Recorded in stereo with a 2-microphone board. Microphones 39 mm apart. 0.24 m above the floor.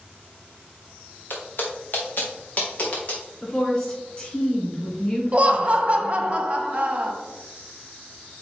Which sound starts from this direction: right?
Laughter, at 5.3 s.